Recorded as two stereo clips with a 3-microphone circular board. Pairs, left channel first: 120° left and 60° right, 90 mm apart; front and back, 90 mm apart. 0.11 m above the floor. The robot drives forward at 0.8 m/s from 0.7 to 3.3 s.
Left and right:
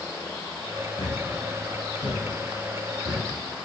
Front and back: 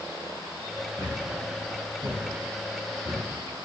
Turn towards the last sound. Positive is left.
turn(degrees=135)